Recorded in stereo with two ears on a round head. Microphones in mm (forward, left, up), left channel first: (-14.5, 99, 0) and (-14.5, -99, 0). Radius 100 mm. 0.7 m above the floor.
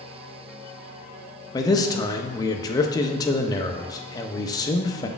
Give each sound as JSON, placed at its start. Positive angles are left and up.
{"t": 1.5, "sound": "a man speaking", "side_deg": 15, "distance_m": 0.5}